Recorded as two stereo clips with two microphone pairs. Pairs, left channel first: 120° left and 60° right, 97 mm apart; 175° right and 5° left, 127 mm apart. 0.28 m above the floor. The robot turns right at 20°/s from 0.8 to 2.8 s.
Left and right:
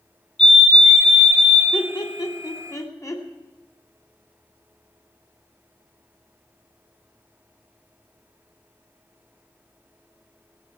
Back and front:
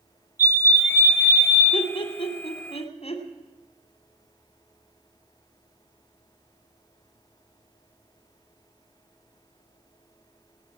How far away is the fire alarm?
About 4 m.